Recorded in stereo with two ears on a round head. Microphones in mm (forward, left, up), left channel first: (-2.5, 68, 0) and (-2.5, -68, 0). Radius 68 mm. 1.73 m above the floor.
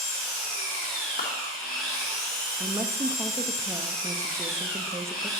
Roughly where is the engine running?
Centre.